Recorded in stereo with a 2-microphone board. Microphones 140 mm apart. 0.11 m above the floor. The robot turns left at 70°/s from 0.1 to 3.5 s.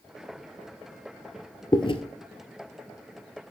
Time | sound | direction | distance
1.7 | chewing | 30° left (ahead or behind) | 0.7 m